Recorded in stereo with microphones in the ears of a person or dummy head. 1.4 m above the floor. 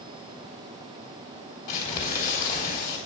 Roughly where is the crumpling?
Left.